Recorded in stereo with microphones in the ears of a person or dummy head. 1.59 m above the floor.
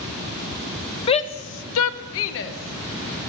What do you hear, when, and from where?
1.1 s a shout: 30° left (ahead or behind), 0.7 m; by 3.2 s 45° left (ahead or behind), 1.5 m